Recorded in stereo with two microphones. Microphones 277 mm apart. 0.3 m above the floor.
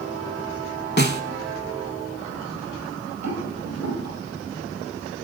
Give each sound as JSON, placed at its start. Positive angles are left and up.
{"t": 1.0, "sound": "a snare drum", "side_deg": 40, "distance_m": 0.6}
{"t": 3.2, "sound": "a rattle", "side_deg": -65, "distance_m": 4.0}